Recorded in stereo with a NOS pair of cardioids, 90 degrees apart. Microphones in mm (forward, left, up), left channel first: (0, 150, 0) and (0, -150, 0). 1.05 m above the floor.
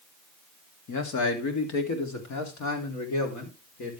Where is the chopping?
I don't hear chopping.